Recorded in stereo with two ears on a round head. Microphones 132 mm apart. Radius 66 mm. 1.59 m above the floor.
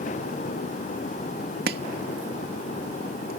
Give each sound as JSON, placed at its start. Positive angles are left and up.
{"t": 1.7, "sound": "chopping", "side_deg": -75}